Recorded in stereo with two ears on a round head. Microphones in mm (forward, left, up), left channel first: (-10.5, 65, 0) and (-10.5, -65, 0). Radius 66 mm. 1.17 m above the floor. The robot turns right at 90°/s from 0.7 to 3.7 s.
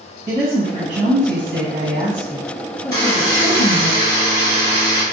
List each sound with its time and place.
0.3 s a woman speaking: 155° right, 0.8 m; by 3.9 s 115° left, 0.8 m
2.9 s a buzzer: 155° left, 1.7 m; by 5.0 s 135° right, 1.7 m